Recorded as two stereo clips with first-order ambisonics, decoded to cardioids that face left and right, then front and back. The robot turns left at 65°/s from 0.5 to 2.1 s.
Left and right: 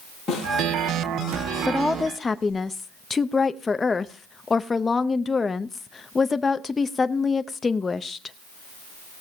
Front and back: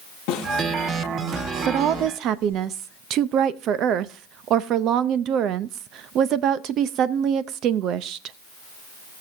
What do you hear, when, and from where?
0.3 s a snare drum: 5° left, 9.5 m
1.7 s a woman speaking: 170° right, 0.6 m; by 8.4 s 160° left, 0.6 m